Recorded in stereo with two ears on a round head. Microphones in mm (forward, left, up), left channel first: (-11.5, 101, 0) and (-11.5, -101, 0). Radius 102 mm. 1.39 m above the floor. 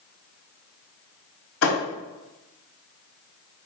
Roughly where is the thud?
Left.